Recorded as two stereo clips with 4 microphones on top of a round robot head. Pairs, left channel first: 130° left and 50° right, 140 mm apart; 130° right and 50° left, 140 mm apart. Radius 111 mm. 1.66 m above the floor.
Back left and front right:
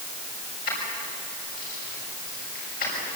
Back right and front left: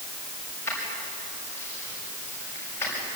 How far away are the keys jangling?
About 6.5 m.